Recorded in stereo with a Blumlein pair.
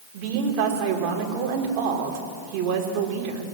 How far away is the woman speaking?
About 4.5 m.